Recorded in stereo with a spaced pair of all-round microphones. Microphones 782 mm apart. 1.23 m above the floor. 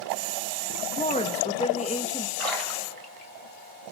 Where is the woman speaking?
10° left (ahead or behind), 2.0 m.